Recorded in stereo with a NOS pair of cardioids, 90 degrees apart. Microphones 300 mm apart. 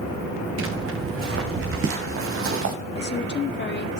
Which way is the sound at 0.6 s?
45° right.